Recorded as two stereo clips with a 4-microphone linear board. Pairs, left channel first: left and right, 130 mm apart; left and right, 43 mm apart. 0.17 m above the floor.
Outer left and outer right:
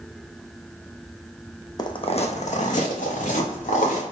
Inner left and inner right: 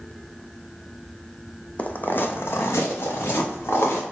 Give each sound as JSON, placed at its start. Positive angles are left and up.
{"t": 1.8, "sound": "footsteps", "side_deg": 30, "distance_m": 0.5}